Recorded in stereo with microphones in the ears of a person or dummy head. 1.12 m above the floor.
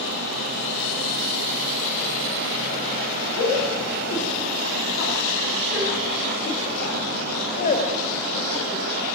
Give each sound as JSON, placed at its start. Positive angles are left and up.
{"t": 3.4, "sound": "a shout", "side_deg": 75, "distance_m": 9.0}